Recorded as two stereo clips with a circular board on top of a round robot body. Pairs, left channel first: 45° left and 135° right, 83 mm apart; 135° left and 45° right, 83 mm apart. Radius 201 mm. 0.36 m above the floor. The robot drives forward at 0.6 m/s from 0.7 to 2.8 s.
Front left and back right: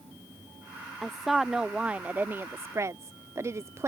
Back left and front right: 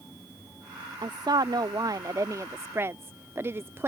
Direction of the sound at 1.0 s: 45° right.